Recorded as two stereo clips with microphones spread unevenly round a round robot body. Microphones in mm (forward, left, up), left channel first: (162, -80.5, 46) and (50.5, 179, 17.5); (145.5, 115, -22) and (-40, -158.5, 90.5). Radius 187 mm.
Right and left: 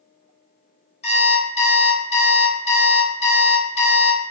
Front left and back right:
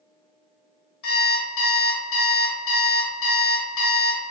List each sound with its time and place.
1.0 s an alarm clock: 5° left, 0.8 m